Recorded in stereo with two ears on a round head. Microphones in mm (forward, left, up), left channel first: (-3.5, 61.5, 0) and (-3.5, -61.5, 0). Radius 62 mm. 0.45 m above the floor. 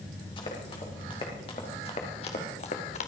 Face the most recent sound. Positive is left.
turn(degrees=55)  # may be behind; listen again after turning